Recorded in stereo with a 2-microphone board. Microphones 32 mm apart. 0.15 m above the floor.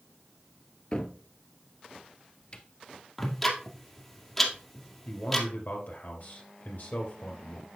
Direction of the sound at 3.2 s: 10° left (ahead or behind).